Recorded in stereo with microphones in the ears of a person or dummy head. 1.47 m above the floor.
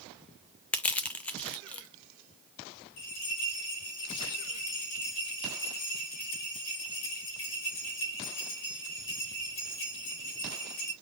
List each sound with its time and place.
0.7 s crushing: 5° left (ahead or behind), 0.6 m
3.0 s a bell: 75° left (ahead or behind), 3 m